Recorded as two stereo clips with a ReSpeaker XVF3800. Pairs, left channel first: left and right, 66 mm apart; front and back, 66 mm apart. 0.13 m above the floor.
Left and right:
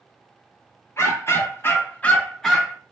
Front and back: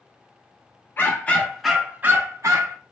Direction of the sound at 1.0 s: 55° left.